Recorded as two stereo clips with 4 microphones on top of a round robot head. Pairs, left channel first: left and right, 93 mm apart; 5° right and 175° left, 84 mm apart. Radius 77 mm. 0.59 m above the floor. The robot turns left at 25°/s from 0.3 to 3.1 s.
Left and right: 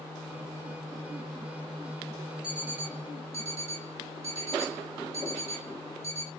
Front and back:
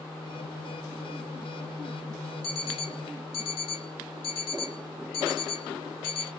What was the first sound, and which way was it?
An alarm clock, 10° right.